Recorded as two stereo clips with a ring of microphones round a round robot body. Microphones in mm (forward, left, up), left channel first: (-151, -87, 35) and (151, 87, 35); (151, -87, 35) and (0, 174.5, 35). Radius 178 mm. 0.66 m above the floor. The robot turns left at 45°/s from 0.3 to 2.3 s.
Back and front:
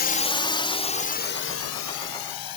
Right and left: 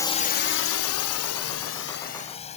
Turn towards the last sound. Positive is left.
turn(degrees=-130)